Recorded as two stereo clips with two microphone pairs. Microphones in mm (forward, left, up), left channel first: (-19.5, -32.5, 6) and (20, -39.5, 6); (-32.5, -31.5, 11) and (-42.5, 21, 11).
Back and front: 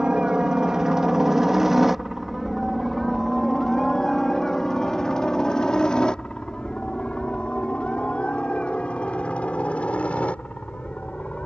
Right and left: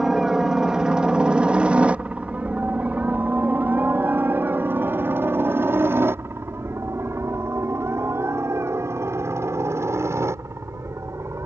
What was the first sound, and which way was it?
A helicopter, 25° left.